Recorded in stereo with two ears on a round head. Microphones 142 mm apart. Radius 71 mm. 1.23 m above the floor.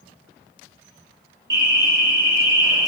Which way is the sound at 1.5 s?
30° right (ahead or behind).